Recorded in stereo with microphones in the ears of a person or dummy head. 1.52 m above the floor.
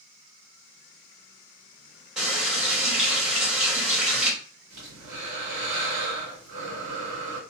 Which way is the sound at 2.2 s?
5° right (ahead or behind).